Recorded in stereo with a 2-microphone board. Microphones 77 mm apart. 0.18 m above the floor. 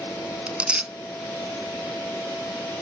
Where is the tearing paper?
15° right (ahead or behind).